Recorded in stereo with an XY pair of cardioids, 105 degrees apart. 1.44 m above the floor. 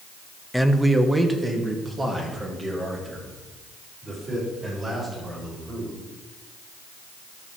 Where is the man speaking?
Straight ahead, 0.7 m; by 5.9 s 25° right, 7.5 m.